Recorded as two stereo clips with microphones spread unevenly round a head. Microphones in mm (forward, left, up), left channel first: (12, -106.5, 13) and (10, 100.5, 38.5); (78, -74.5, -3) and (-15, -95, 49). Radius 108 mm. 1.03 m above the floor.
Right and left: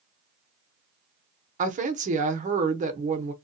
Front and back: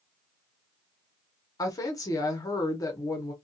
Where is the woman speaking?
35° left, 0.7 m.